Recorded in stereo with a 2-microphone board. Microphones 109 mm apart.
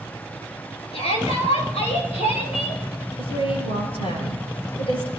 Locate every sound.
0.9 s a shout: 70° left (ahead or behind), 5.5 m; by 2.8 s 80° left, 7 m
3.2 s a woman speaking: 60° left (ahead or behind), 7 m